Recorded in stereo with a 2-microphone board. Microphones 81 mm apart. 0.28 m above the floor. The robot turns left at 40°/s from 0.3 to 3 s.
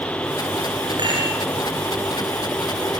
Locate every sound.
1.0 s a rattle: 70° right (ahead or behind), 5 m; by 1.4 s 85° right, 5 m